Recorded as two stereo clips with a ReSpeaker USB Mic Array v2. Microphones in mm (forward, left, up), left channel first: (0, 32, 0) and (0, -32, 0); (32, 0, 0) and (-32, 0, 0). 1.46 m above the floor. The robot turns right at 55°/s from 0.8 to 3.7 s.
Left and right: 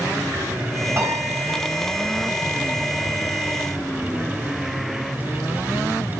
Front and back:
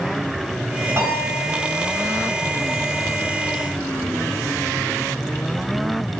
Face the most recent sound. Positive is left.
turn(degrees=10)